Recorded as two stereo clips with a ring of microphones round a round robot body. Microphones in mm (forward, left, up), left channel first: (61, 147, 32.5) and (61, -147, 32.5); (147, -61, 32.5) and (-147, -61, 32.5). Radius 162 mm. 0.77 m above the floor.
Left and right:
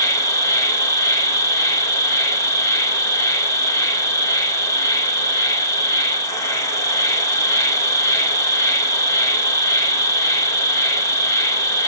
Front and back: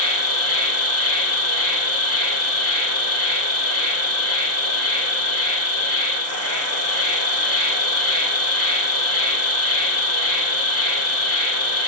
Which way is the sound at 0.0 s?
15° left.